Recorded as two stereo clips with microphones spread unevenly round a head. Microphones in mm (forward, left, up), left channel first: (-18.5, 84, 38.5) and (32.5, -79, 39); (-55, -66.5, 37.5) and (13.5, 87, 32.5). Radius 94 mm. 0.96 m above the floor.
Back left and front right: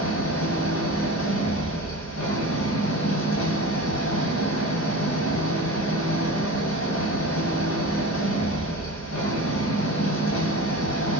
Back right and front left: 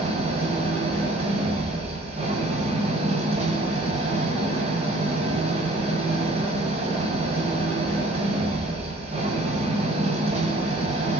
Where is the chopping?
I don't hear chopping.